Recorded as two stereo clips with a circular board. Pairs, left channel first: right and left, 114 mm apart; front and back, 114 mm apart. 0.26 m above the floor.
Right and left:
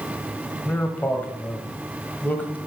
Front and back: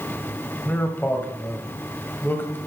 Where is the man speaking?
40° right, 1.2 m.